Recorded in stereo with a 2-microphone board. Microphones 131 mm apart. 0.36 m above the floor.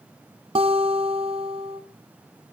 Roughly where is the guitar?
Right.